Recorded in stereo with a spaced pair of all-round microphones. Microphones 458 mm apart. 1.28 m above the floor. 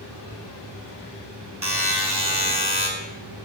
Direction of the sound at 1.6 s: 55° right (ahead or behind).